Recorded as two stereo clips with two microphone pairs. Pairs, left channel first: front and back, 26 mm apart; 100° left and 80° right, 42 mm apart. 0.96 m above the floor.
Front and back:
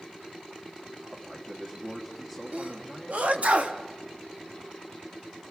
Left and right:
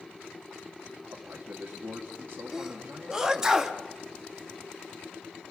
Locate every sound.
1.1 s a man speaking: 115° right, 2 m
2.5 s a sneeze: 155° right, 1.4 m